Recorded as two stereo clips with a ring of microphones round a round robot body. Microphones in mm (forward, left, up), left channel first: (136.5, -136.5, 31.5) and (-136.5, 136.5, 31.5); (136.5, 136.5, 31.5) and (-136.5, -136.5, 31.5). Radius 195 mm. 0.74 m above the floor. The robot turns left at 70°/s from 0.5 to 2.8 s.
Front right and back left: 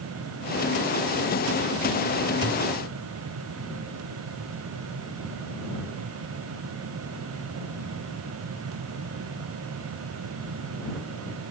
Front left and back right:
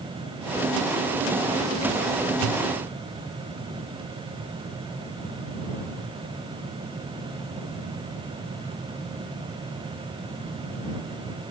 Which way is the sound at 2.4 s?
145° right.